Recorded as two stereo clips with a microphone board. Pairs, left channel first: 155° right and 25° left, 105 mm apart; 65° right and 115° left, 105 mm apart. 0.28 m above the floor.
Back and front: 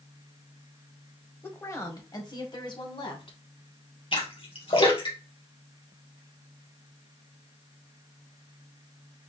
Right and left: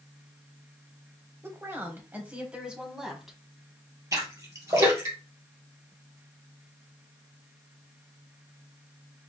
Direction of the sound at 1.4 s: 155° left.